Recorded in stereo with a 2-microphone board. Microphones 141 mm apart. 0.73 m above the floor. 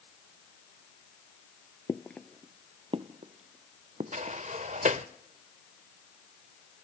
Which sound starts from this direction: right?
A sliding door, at 4.1 s.